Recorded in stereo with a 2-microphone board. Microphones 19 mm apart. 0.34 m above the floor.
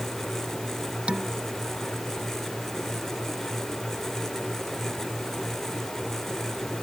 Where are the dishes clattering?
80° right.